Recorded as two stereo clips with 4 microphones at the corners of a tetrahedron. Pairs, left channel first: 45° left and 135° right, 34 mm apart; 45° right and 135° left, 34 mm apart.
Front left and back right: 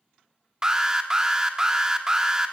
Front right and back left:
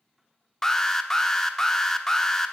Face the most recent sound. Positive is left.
turn(degrees=-95)